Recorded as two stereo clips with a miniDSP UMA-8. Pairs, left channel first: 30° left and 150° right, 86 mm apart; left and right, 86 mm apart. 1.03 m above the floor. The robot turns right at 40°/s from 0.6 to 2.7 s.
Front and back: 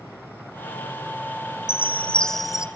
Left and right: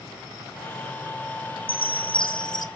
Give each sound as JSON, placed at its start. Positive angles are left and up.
{"t": 1.7, "sound": "a chime", "azimuth_deg": 90, "distance_m": 1.3}